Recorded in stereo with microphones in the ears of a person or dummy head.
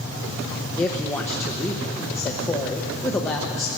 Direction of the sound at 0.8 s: 10° left (ahead or behind).